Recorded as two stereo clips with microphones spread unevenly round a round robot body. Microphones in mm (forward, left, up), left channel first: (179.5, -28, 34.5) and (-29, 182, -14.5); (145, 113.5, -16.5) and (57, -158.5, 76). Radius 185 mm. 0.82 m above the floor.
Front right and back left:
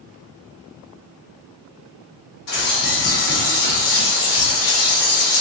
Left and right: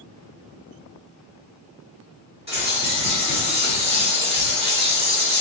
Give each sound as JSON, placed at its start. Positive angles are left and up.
{"t": 2.5, "sound": "a bird", "azimuth_deg": -35, "distance_m": 1.5}